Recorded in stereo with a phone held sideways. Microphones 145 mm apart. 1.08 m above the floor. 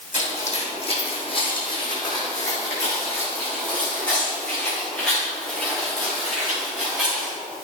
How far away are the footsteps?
About 3 m.